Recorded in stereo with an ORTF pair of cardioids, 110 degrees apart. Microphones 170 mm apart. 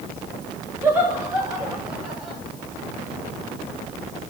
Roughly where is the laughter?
Ahead.